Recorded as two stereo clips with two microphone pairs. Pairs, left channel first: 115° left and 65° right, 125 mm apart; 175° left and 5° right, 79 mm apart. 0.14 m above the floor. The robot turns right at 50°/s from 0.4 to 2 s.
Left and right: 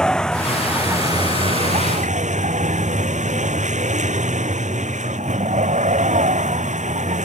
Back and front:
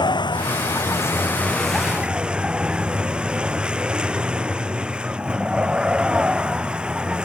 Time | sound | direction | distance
0.0 | a vehicle | 160° right | ?